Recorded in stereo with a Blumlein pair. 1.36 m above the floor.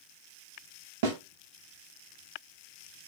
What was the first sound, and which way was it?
A snare drum, 50° right.